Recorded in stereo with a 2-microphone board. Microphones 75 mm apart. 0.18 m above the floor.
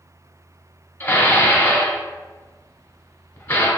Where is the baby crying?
No baby crying in this recording.